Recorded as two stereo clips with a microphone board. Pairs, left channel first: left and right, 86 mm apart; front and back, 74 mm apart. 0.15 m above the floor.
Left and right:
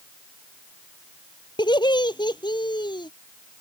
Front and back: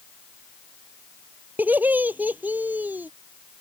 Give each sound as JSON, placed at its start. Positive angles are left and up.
{"t": 1.6, "sound": "laughter", "azimuth_deg": 115}